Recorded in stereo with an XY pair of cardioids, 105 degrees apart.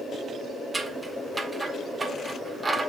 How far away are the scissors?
About 1.4 m.